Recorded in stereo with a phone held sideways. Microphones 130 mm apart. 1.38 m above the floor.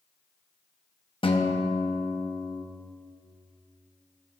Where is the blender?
I don't hear a blender.